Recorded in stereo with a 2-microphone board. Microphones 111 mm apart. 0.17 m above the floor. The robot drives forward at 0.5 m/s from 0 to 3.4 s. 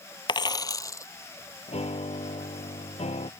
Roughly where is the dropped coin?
Left.